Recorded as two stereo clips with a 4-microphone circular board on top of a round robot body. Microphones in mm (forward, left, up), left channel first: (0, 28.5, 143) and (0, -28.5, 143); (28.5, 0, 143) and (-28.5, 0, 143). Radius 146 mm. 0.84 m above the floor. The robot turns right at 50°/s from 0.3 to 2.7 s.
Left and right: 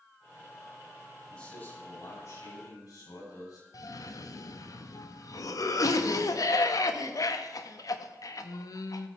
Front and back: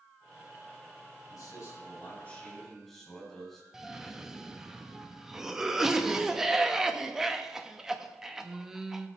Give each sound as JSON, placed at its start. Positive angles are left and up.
{"t": 1.3, "sound": "a man speaking", "azimuth_deg": 20, "distance_m": 6.5}
{"t": 3.7, "sound": "a cough", "azimuth_deg": 95, "distance_m": 1.2}